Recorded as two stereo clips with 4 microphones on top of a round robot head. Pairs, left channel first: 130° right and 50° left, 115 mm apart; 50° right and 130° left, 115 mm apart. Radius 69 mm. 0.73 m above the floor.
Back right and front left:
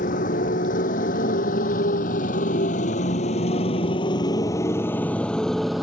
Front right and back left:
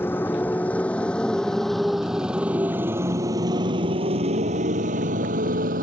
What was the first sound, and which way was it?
A motorcycle, 120° right.